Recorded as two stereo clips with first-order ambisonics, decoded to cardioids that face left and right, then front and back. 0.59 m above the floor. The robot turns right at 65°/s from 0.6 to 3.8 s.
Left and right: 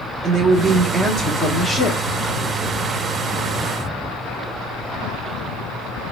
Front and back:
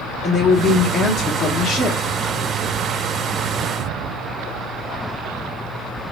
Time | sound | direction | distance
0.2 | a woman speaking | 75° right | 0.9 m